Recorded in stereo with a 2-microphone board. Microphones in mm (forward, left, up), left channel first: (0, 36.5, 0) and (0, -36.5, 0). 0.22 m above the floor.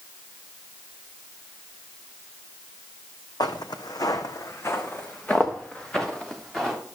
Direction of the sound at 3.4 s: 80° left.